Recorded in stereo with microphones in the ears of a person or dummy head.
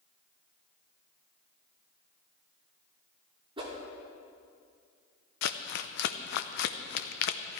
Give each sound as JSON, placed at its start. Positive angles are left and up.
{"t": 3.6, "sound": "a whoosh", "side_deg": -35, "distance_m": 2.5}
{"t": 5.4, "sound": "crumpling", "side_deg": 60, "distance_m": 0.7}